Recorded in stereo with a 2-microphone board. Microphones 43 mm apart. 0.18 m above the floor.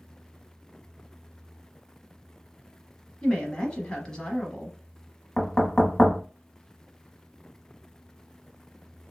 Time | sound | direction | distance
3.2 | a woman speaking | 20° left (ahead or behind) | 1.0 m
5.4 | knocking | 25° left (ahead or behind) | 0.9 m